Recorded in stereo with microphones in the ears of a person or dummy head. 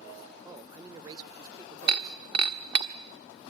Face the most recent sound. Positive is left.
turn(degrees=-30)  # may be behind; listen again after turning